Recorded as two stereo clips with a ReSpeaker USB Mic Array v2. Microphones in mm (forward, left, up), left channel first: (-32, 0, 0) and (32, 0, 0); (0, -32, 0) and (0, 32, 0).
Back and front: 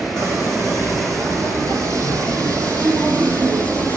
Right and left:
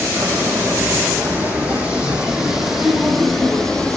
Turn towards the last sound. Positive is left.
turn(degrees=-20)